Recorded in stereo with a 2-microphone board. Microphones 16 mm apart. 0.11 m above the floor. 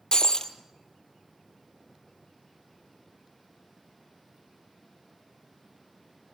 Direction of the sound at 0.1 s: 55° left (ahead or behind).